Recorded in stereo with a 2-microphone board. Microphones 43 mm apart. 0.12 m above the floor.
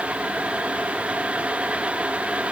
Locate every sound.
Only background noise.